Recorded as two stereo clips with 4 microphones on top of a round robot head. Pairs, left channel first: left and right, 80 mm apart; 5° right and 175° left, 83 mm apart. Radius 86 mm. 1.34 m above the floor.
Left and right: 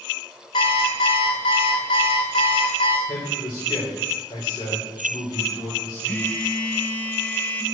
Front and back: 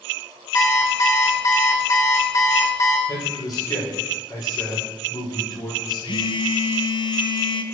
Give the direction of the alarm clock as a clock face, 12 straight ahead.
10 o'clock.